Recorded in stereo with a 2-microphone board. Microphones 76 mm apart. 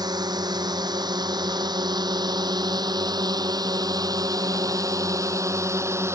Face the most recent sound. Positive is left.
turn(degrees=-35)  # may be behind; listen again after turning